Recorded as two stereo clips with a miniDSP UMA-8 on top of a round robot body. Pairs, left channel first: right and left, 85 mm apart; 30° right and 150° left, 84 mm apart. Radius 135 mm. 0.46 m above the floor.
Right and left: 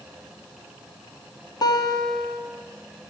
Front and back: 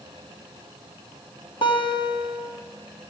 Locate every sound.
1.6 s a guitar: 50° right, 4 m